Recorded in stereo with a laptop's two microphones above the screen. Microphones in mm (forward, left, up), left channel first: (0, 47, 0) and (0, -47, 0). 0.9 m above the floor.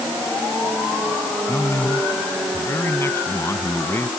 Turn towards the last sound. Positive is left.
turn(degrees=25)  # may be behind; listen again after turning